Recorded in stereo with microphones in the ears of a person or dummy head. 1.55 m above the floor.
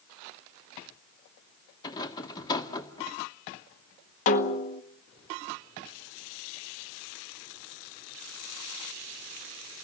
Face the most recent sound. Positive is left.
turn(degrees=40)  # may be behind; listen again after turning